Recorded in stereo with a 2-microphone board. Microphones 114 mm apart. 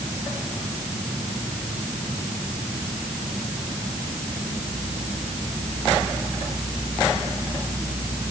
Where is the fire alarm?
I don't hear a fire alarm.